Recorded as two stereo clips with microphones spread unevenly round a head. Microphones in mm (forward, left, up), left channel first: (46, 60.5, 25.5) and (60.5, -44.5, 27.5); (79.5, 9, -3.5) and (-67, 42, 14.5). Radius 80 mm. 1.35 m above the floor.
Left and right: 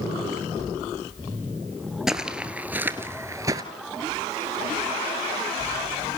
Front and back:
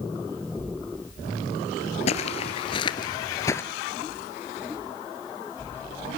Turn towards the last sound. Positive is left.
turn(degrees=-85)